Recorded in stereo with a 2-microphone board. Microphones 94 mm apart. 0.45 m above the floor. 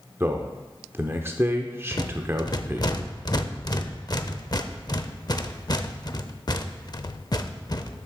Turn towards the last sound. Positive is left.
turn(degrees=45)  # may be behind; listen again after turning